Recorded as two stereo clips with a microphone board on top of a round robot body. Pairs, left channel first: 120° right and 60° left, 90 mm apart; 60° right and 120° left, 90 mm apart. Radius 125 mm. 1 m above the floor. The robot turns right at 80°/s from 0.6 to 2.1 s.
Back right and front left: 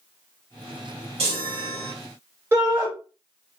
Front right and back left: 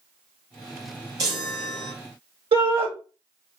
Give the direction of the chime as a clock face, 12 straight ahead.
10 o'clock.